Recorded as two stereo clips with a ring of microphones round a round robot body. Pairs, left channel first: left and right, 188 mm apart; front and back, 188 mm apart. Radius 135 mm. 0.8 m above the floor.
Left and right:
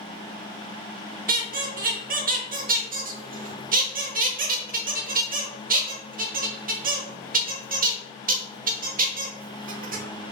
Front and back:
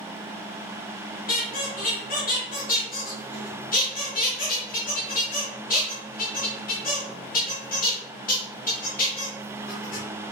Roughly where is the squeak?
Ahead right.